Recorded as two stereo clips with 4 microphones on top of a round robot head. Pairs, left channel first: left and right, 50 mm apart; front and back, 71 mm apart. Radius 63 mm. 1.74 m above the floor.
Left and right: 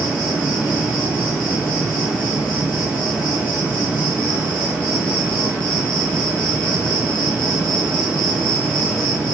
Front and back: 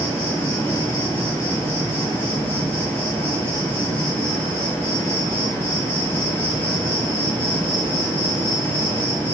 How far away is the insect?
About 3.5 m.